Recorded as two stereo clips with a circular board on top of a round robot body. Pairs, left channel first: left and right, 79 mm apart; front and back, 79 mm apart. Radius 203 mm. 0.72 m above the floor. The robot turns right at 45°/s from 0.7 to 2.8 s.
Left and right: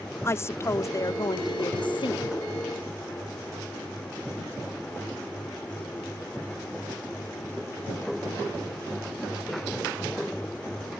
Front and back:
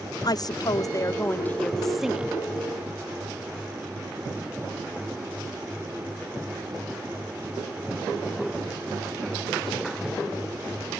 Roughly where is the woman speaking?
Ahead left.